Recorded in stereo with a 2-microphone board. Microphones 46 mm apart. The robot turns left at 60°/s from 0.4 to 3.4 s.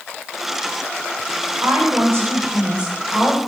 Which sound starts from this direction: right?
A woman speaking, at 1.6 s.